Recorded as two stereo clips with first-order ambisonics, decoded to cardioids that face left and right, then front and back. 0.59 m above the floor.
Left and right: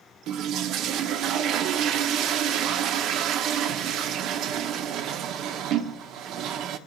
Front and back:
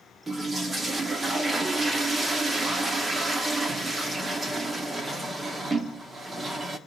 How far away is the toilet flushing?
About 0.7 m.